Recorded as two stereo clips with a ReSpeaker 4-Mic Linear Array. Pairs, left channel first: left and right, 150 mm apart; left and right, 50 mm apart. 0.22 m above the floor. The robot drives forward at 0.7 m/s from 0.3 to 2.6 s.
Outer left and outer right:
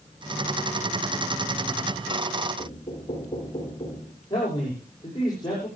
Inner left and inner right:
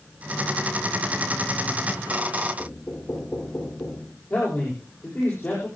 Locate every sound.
2.6 s knocking: 35° left (ahead or behind), 6 m
4.3 s a man speaking: 30° left (ahead or behind), 9.5 m